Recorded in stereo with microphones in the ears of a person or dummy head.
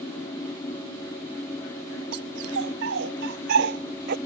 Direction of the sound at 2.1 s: 75° right (ahead or behind).